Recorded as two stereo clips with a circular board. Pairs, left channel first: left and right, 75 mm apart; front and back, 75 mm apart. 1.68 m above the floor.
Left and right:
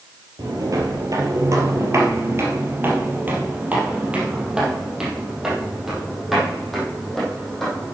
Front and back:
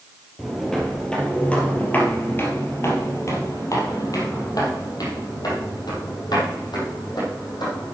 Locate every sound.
0.4 s footsteps: 85° right, 2.5 m; by 8.0 s 5° left, 5 m